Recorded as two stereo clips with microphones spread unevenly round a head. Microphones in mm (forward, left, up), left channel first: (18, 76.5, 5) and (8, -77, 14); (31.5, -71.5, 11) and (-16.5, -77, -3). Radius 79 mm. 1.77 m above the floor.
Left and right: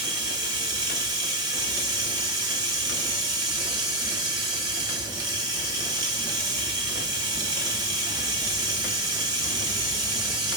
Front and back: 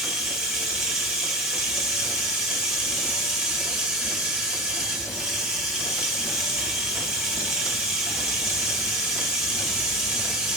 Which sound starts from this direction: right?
Running water, at 0.0 s.